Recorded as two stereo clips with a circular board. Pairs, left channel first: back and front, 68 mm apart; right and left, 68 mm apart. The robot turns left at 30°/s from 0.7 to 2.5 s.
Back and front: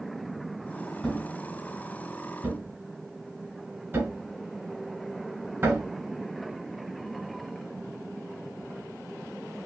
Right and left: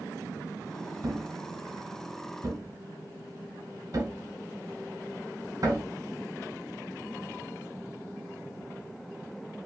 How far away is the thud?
About 1.6 m.